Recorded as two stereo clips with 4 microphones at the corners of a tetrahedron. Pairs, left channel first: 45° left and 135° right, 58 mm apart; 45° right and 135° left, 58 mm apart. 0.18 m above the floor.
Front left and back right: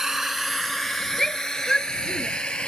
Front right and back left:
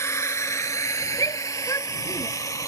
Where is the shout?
35° right.